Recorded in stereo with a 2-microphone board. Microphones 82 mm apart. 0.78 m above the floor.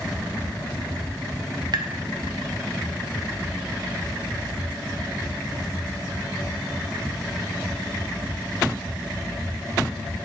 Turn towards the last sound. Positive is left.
turn(degrees=-60)  # may be behind; listen again after turning